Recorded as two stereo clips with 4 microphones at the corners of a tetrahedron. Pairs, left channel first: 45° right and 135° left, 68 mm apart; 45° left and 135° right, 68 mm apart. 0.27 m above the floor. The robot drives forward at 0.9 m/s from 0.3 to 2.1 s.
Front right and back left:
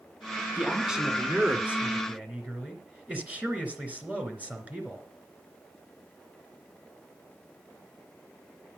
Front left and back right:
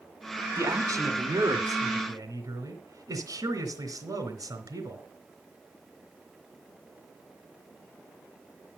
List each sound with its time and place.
0.6 s a man speaking: 140° right, 1.8 m; by 5.0 s 160° right, 3 m